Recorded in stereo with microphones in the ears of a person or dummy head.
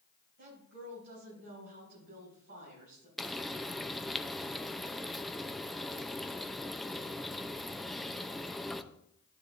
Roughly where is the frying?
Centre.